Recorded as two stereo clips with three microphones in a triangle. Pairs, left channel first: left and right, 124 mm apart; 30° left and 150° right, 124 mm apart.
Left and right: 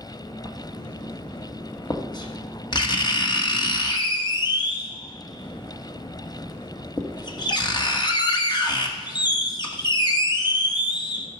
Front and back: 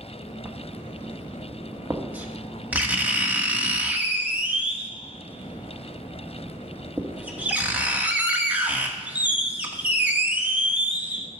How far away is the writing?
About 1.3 m.